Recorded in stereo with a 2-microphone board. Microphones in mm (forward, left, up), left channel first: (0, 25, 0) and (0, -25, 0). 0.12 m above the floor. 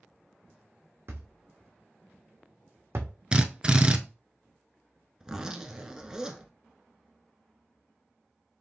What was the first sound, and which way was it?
A thud, 70° right (ahead or behind).